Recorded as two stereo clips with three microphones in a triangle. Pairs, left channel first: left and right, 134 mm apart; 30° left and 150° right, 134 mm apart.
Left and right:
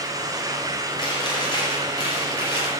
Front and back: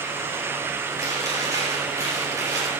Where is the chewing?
145° left, 3.5 m.